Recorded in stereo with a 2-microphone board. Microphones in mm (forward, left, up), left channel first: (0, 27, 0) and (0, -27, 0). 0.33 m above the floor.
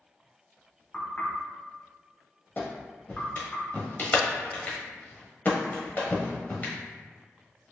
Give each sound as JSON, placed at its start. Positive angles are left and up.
{"t": 0.9, "sound": "knocking", "side_deg": 25, "distance_m": 1.4}
{"t": 2.6, "sound": "a clap", "side_deg": 35, "distance_m": 1.1}